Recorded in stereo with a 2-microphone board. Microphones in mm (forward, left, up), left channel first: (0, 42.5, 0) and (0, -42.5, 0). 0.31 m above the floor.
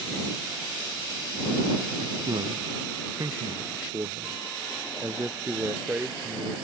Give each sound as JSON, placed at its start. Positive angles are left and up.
{"t": 2.0, "sound": "a man speaking", "side_deg": -60}